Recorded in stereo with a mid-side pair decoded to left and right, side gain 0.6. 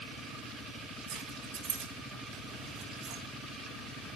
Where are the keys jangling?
65° right, 4 m.